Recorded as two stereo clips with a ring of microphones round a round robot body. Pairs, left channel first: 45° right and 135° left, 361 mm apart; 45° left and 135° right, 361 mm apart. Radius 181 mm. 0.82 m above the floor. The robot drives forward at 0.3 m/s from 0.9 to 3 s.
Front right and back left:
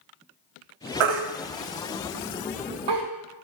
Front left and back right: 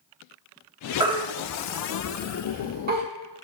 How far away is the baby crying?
About 1.0 m.